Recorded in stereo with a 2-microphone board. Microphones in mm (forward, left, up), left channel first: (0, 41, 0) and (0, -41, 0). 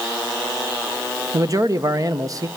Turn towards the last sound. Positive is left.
turn(degrees=-40)  # may be behind; listen again after turning